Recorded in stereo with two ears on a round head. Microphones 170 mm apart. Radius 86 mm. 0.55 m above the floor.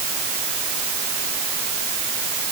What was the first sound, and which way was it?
Only background noise.